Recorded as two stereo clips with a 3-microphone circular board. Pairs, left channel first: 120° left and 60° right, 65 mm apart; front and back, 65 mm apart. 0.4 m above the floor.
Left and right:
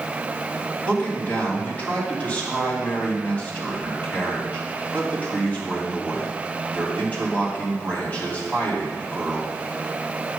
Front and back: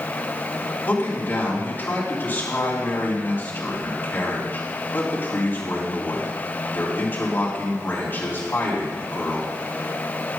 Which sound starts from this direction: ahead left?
A man speaking, at 0.8 s.